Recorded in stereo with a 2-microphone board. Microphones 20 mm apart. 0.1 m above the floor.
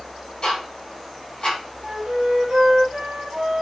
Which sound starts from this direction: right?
A flute, at 1.8 s.